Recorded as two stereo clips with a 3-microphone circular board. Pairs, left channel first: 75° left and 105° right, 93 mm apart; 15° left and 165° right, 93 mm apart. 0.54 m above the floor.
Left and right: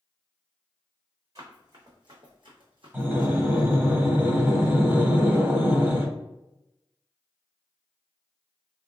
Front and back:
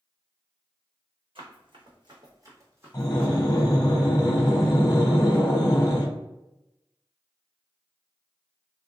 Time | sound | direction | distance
1.4 | running footsteps | 150° right | 1.4 m
2.9 | breathing | 40° right | 0.9 m